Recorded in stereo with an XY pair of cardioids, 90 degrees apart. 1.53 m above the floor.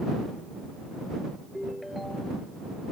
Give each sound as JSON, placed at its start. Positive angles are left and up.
{"t": 1.5, "sound": "a ringtone", "azimuth_deg": 10}